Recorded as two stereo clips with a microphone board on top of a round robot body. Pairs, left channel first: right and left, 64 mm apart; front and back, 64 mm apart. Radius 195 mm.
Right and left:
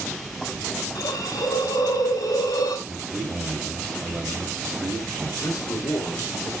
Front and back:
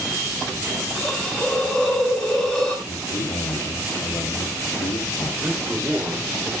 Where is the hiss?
85° right, 4.5 m.